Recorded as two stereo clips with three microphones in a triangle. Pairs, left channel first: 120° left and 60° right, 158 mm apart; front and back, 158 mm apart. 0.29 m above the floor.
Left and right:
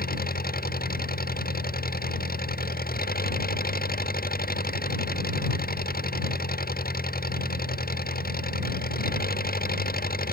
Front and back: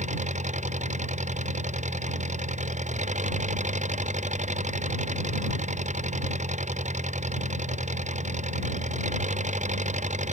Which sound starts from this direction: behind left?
An engine running, at 0.0 s.